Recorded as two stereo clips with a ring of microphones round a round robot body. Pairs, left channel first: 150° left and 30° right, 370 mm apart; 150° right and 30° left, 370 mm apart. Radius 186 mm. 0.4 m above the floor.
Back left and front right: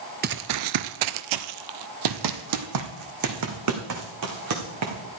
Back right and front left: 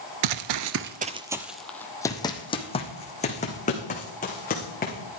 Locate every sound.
0.2 s running footsteps: 35° left, 0.5 m; by 5.2 s 80° right, 3 m